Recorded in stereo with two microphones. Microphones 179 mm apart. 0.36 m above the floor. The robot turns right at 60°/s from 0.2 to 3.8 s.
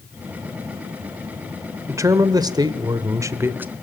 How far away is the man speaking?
About 0.9 m.